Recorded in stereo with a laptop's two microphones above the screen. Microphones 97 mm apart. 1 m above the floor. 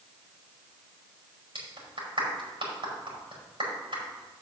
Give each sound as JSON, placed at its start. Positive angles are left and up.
{"t": 1.6, "sound": "a clap", "side_deg": -60, "distance_m": 5.0}